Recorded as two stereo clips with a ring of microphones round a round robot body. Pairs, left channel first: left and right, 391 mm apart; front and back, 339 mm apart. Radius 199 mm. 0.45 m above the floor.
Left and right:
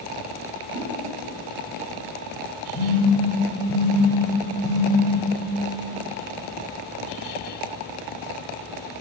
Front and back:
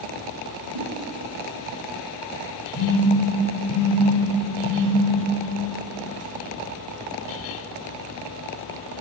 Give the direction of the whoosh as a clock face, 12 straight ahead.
5 o'clock.